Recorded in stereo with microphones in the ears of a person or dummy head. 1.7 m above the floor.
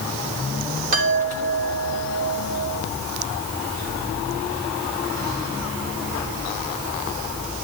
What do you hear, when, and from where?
0.9 s a chime: 40° right (ahead or behind), 4 m